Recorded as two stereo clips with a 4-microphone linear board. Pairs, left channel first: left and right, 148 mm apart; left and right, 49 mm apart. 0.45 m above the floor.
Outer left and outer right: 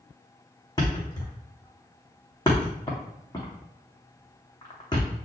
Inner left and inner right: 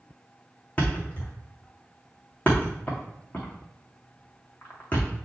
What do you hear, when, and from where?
0.8 s a thud: 25° left (ahead or behind), 2.5 m